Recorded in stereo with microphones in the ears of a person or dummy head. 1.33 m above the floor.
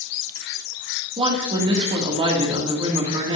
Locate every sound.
1.2 s a woman speaking: 30° right (ahead or behind), 2.5 m